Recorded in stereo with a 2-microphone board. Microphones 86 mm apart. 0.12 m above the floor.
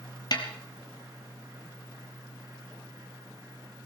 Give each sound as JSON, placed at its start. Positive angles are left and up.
{"t": 0.3, "sound": "a snare drum", "side_deg": 55, "distance_m": 2.0}